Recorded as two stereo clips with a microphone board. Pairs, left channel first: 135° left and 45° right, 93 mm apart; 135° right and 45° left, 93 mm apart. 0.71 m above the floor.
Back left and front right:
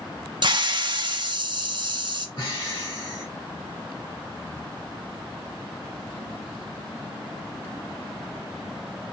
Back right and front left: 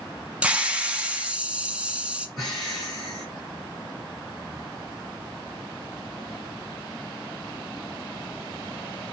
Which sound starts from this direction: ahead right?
A hiss, at 0.4 s.